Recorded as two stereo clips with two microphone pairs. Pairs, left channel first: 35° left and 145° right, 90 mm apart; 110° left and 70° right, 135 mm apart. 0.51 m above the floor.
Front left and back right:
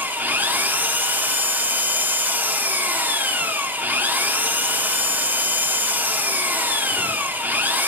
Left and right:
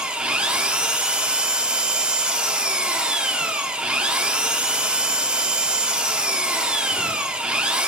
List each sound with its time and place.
0.0 s an engine running: 140° right, 0.8 m